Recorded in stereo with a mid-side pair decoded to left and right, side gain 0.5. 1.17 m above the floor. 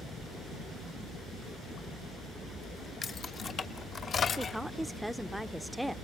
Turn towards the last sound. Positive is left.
turn(degrees=-5)